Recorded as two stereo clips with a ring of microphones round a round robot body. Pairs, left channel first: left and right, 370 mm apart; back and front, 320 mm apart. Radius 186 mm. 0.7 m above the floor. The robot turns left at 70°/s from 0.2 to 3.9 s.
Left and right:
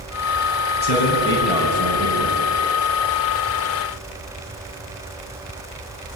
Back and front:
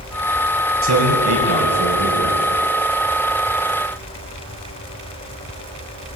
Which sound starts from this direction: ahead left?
A man speaking, at 0.8 s.